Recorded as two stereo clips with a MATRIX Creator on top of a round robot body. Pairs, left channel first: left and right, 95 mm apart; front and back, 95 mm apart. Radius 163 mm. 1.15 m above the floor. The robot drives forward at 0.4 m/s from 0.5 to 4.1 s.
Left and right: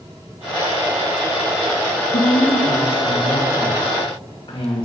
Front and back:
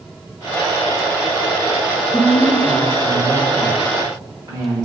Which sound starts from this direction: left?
A woman speaking, at 2.1 s.